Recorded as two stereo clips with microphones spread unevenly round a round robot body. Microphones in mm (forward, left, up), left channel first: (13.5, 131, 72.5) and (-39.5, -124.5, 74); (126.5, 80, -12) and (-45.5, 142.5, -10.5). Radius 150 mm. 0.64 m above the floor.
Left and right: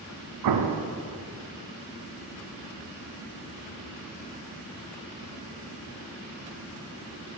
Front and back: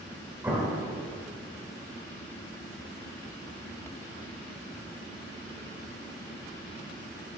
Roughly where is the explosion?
Behind right.